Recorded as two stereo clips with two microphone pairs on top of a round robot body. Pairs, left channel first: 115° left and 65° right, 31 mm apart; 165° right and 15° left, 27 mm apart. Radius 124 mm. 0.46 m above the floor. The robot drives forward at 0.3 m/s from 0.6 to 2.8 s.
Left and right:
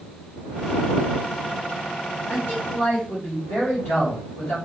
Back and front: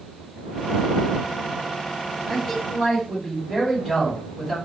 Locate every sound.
2.3 s a man speaking: 115° left, 2 m; by 4.6 s 120° left, 2 m